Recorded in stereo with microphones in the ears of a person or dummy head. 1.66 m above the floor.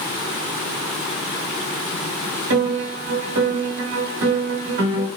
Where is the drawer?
No drawer in this recording.